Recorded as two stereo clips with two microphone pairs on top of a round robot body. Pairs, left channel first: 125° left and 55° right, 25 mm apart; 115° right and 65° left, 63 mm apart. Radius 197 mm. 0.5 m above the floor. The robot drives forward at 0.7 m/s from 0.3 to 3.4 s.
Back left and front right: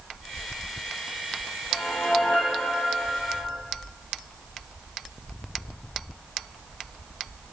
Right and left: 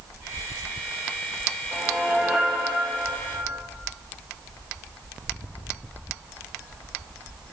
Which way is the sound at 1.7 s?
140° left.